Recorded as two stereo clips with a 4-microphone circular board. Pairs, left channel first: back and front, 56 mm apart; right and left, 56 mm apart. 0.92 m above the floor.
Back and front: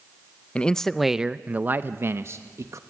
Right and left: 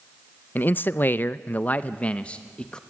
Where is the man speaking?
120° right, 0.6 m; by 2.8 s 15° right, 1.1 m.